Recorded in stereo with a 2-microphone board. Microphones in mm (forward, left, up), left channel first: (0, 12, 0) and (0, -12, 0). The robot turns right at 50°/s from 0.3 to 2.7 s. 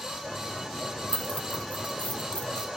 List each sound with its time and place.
1.1 s keys jangling: 50° left (ahead or behind), 1.0 m; by 2.7 s 45° left (ahead or behind), 1.0 m